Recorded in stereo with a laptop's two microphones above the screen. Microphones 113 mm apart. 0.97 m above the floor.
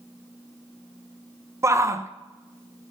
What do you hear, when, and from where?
1.6 s a shout: 25° right (ahead or behind), 0.9 m